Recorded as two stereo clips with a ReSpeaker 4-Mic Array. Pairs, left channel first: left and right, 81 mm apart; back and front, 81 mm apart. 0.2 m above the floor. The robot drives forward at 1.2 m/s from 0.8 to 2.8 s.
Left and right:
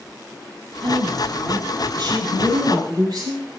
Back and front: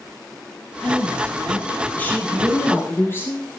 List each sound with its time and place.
0.8 s a woman speaking: 95° right, 5 m; by 3.5 s 120° right, 5.5 m